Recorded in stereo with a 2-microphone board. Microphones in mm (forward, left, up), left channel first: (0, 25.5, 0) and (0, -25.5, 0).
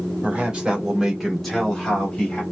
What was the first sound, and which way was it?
A man speaking, 25° right (ahead or behind).